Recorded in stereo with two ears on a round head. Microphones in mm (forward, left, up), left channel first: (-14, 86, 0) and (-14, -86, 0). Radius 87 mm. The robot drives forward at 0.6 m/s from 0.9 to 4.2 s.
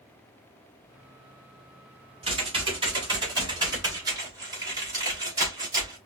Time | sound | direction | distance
2.2 | typing on a keyboard | 30° right (ahead or behind) | 2.5 m